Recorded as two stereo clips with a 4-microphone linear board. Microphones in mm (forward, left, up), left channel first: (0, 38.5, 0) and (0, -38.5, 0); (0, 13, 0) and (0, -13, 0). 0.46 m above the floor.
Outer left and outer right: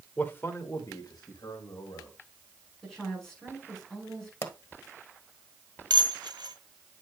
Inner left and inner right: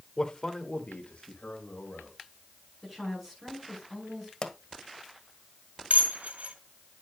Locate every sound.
0.2 s a man speaking: 20° left (ahead or behind), 1.2 m; by 2.1 s 70° left (ahead or behind), 2 m
2.8 s a woman speaking: 5° left (ahead or behind), 6 m
4.4 s a pop: 35° left (ahead or behind), 1.3 m
5.9 s dishes clattering: 75° right (ahead or behind), 1.6 m